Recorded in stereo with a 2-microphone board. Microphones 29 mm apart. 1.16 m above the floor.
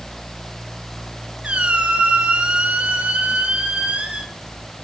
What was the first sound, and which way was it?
A squeak, 45° right (ahead or behind).